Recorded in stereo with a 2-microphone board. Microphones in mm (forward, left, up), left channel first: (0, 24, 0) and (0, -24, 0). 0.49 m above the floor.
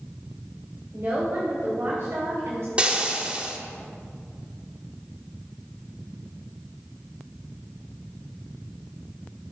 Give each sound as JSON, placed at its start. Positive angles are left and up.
{"t": 0.9, "sound": "a woman speaking", "side_deg": -50, "distance_m": 3.0}
{"t": 2.8, "sound": "frying", "side_deg": -25, "distance_m": 1.4}